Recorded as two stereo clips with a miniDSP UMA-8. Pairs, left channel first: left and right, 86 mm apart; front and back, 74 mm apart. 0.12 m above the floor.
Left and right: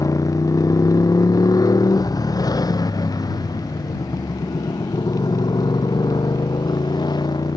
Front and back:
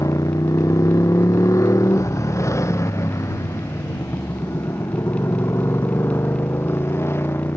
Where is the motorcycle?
40° left; by 7.6 s 55° left.